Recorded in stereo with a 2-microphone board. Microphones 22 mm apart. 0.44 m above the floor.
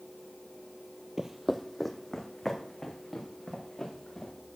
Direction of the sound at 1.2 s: 25° right (ahead or behind).